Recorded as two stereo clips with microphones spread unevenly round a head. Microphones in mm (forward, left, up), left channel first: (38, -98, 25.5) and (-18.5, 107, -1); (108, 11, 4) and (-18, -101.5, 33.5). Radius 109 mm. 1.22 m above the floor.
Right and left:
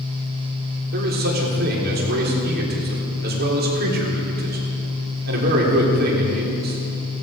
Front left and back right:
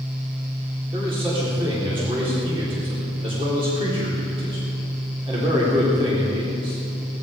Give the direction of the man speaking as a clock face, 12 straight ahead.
7 o'clock.